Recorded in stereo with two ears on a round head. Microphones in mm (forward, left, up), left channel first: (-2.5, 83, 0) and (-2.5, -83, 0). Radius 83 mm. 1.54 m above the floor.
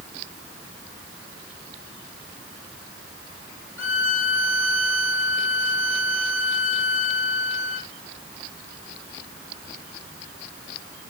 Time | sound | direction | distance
3.8 | a violin | 15° right (ahead or behind) | 1.4 m